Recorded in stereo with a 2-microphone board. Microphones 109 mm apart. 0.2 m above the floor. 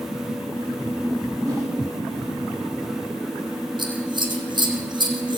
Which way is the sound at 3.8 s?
45° right (ahead or behind).